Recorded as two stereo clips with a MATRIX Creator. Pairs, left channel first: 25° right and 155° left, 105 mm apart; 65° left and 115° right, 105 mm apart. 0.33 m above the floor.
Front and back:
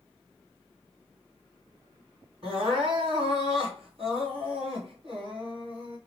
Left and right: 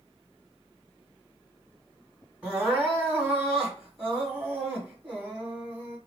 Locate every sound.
2.4 s crying: 170° left, 2.5 m